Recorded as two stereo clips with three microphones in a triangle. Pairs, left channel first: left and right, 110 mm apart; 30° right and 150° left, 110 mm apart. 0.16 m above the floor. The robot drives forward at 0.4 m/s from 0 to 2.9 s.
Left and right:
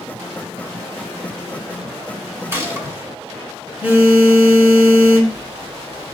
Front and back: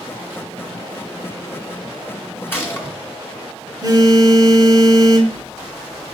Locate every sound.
2.5 s a gunshot: 70° right, 1.5 m; by 3.0 s 80° right, 1.5 m
3.8 s a phone buzzing: 165° right, 1.2 m